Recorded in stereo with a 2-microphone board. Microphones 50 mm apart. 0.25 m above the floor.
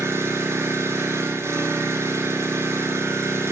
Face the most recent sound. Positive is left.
turn(degrees=-70)  # may be behind; listen again after turning